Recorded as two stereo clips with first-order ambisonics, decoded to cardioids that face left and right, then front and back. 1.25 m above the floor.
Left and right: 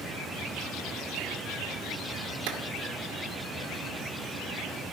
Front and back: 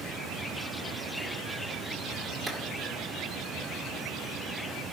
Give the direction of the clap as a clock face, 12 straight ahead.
3 o'clock.